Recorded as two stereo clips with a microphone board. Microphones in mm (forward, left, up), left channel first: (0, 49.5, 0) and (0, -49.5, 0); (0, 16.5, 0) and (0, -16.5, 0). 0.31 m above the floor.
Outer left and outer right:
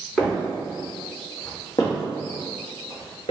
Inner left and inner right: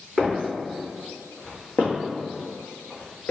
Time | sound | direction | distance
0.2 | footsteps | 5° right (ahead or behind) | 1.4 m